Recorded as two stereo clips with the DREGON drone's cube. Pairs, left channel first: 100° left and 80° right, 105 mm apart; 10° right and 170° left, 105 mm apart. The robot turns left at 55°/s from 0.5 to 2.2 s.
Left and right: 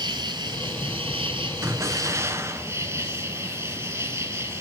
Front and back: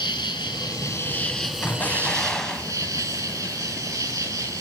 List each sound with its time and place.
0.0 s an insect: 40° right, 2.5 m; by 4.6 s 135° right, 2.5 m
1.6 s an explosion: 60° right, 1.0 m; by 2.7 s 90° right, 1.0 m